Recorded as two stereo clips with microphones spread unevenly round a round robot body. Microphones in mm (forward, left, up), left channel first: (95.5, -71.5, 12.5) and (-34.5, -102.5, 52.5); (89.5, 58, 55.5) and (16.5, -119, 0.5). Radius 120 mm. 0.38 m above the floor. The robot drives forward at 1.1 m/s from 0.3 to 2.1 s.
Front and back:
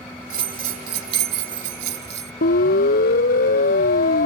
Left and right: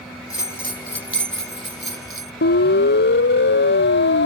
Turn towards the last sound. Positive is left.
turn(degrees=40)